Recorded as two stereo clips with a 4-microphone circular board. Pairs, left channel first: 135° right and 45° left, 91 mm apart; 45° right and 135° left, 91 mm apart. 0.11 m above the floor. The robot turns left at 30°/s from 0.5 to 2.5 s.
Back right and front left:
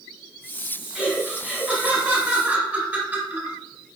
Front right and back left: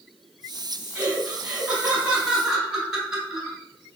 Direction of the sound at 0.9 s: 110° left.